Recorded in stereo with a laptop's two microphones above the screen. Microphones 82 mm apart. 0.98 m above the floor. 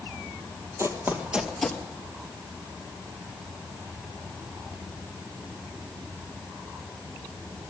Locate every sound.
0.8 s running footsteps: 35° right (ahead or behind), 1.5 m; by 1.8 s 15° left (ahead or behind), 1.1 m